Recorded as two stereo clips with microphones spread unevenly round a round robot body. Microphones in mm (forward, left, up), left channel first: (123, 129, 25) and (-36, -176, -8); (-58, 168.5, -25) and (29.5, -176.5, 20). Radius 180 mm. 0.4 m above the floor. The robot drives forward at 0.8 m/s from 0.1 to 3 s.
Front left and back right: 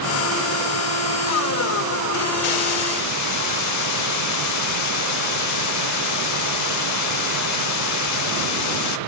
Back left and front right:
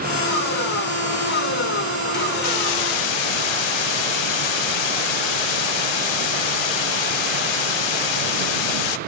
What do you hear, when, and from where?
2.4 s a hiss: 55° left, 0.5 m; by 9.0 s 110° left, 0.5 m